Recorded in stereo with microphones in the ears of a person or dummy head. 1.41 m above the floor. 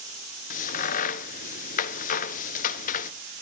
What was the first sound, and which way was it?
A crack, 40° left (ahead or behind).